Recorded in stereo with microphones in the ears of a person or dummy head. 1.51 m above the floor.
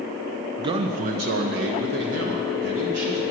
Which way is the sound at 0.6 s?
25° right (ahead or behind).